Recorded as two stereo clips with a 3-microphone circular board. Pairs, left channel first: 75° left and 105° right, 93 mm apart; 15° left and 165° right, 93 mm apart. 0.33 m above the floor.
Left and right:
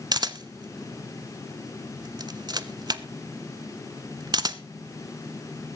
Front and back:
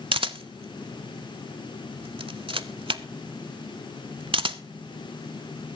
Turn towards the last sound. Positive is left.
turn(degrees=-145)